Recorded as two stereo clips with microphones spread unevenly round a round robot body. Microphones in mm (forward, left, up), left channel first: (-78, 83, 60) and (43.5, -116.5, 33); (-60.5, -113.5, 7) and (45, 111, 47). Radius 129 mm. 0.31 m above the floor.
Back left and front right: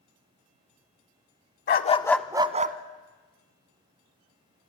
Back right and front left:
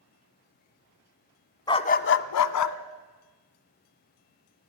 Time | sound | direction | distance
1.7 | a dog barking | 170° left | 0.9 m